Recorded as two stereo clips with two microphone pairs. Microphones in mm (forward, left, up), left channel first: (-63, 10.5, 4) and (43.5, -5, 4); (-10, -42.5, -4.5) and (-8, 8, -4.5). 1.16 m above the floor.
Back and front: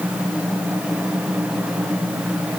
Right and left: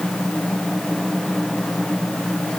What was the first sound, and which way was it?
Only background noise.